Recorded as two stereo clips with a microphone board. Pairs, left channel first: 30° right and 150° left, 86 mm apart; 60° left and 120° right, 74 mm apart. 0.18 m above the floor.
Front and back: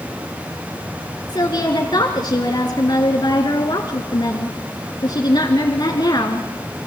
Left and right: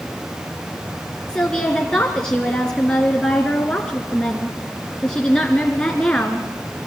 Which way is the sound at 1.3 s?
20° right.